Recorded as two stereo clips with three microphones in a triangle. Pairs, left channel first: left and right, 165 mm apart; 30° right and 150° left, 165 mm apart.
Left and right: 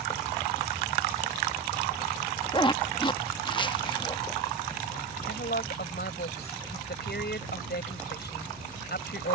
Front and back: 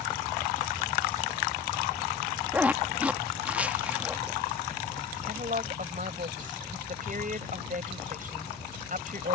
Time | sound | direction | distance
2.5 | a zipper | 80° left | ?
5.2 | a woman speaking | 110° left | ?